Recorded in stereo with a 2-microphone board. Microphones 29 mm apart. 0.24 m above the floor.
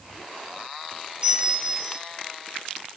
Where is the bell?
40° right (ahead or behind), 2.5 m.